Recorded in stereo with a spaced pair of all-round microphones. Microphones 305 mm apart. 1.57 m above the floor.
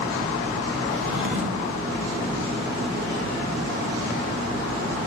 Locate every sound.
0.9 s a drawer: 45° right (ahead or behind), 1.6 m